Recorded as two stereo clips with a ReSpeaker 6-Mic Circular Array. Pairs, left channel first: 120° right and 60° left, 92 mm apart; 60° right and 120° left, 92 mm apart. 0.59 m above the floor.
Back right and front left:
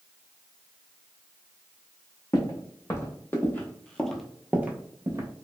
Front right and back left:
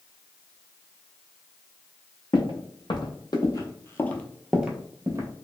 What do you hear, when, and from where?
2.3 s footsteps: 70° right, 1.2 m; by 5.3 s 90° left, 0.7 m